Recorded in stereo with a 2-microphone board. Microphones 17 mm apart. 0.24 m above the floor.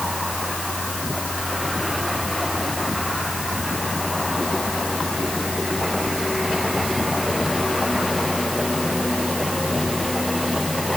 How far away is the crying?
No crying in this recording.